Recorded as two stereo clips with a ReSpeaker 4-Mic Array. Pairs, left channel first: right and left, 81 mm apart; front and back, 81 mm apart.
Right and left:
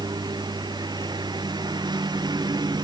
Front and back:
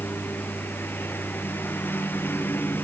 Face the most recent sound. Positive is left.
turn(degrees=65)